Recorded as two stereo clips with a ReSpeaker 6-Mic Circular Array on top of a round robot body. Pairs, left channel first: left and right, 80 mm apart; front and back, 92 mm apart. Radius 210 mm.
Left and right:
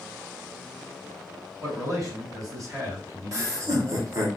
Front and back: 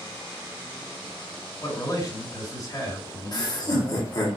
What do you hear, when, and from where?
1.6 s a man speaking: 45° right, 3 m
3.3 s laughter: 40° right, 1.9 m